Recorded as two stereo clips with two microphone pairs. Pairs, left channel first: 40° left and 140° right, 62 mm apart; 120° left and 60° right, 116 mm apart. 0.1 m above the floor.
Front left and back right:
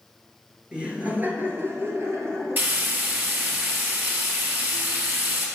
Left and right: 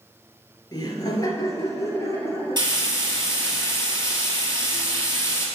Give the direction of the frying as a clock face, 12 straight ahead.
3 o'clock.